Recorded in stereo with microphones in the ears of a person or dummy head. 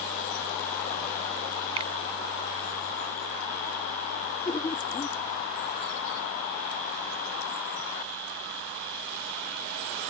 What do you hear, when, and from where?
1.8 s a finger snap: 30° right (ahead or behind)
4.5 s laughter: 20° left (ahead or behind)